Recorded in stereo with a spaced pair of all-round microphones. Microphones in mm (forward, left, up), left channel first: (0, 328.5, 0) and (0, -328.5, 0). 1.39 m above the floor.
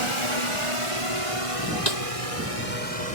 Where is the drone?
45° right (ahead or behind); by 3.1 s 60° right (ahead or behind).